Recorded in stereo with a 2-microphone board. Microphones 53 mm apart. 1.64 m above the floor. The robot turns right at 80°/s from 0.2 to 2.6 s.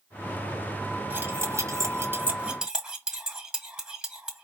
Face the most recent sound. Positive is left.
turn(degrees=-10)  # may be behind; listen again after turning